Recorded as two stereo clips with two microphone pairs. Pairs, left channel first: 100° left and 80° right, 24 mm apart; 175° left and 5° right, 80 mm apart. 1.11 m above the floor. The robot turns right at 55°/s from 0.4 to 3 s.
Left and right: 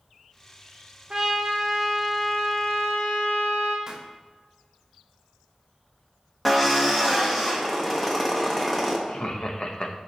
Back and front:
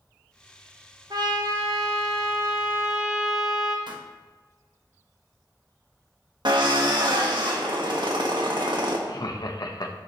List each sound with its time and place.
1.1 s a trumpet: 30° right, 1.2 m; by 3.8 s 75° left, 1.2 m
3.9 s a pop: 15° right, 1.0 m
6.5 s a drill: 15° left, 1.4 m
9.1 s laughter: 145° left, 1.0 m